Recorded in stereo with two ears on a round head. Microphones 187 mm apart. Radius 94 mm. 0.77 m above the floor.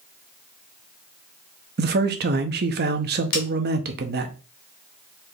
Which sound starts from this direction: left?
A snare drum, at 3.3 s.